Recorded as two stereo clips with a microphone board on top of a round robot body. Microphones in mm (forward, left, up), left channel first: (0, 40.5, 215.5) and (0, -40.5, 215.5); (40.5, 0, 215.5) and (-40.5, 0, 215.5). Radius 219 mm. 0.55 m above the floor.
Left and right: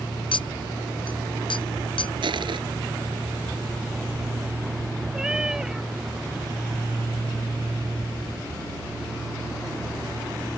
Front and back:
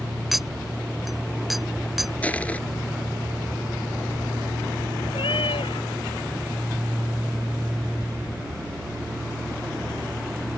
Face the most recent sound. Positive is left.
turn(degrees=-10)